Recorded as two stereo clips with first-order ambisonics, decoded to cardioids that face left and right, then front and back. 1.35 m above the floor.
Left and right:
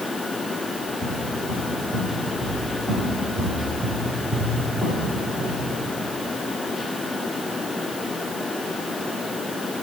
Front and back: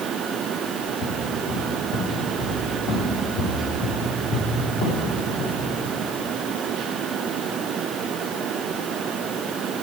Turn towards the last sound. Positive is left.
turn(degrees=-5)